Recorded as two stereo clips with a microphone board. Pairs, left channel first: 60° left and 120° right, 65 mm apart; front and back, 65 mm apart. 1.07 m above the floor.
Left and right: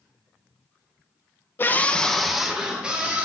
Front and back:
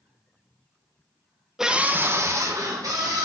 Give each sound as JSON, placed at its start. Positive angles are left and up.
{"t": 1.6, "sound": "a scream", "azimuth_deg": 100, "distance_m": 0.9}